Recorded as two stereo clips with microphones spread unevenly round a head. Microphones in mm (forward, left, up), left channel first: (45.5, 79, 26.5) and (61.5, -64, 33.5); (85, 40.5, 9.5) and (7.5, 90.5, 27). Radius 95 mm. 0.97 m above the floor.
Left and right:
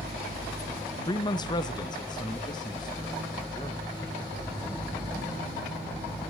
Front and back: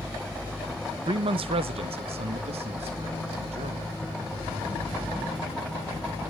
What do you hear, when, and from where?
1.1 s a man speaking: 140° left, 0.5 m; by 3.9 s 160° left, 1.9 m